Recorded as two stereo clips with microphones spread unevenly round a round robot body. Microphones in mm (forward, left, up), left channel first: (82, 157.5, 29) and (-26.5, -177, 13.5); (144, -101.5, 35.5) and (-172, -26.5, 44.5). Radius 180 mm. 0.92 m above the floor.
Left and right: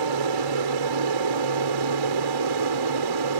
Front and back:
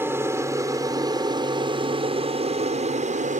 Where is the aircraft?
110° right; by 3.4 s 130° right.